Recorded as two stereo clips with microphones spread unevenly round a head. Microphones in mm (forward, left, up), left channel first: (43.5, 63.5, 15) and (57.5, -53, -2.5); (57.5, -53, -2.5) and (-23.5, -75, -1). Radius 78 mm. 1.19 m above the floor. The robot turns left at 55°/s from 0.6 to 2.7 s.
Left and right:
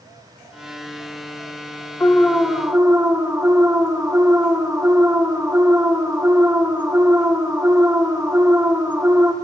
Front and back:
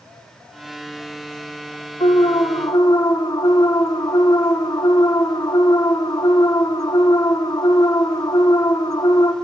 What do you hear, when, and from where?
2.0 s an alarm: 20° left, 1.4 m; by 9.3 s 20° right, 1.4 m